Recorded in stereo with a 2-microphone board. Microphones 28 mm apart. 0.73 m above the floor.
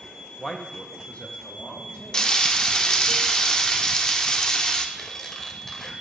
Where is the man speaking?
20° left (ahead or behind), 0.6 m; by 3.1 s 55° left (ahead or behind), 1.9 m.